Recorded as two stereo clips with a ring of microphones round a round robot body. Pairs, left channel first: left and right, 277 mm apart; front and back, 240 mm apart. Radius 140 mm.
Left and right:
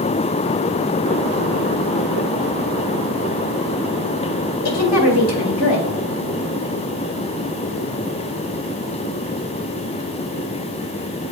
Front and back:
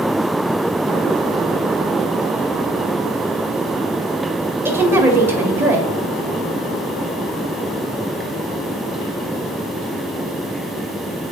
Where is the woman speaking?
100° left, 1.9 m.